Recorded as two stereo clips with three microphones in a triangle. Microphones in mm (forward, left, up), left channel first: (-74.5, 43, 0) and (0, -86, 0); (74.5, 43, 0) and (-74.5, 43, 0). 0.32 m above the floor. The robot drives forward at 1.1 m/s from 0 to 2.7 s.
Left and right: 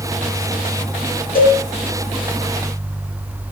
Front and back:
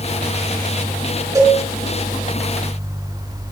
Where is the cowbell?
115° left, 4.5 m.